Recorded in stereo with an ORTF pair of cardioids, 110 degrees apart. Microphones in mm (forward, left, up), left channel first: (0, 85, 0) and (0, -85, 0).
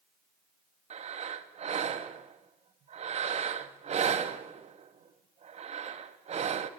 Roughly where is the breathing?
Ahead right.